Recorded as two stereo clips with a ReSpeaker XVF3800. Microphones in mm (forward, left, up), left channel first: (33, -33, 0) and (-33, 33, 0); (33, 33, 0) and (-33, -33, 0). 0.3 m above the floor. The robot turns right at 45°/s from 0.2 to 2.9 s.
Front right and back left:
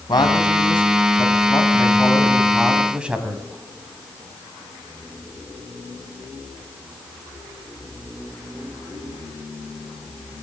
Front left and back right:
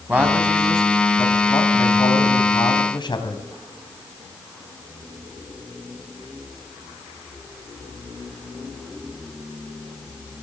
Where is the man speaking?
65° right, 2.5 m; by 3.4 s 60° left, 2.5 m.